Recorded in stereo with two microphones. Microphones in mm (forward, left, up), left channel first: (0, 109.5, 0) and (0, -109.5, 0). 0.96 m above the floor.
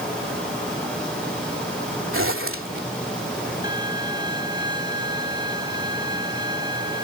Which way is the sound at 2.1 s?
70° right (ahead or behind).